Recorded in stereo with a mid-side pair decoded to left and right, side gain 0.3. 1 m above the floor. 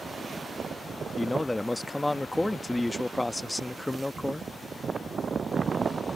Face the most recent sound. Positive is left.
turn(degrees=20)